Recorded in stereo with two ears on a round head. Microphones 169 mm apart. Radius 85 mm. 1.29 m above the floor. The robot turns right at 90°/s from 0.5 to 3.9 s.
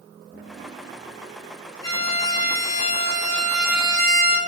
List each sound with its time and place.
1.8 s a violin: 25° left, 1.2 m; by 4.4 s 145° right, 1.2 m